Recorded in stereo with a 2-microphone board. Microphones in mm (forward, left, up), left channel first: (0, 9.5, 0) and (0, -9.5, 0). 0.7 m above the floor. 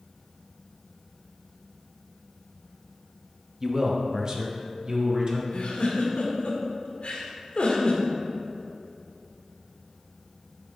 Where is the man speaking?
25° right (ahead or behind), 0.9 m; by 5.4 s 45° right (ahead or behind), 1.7 m.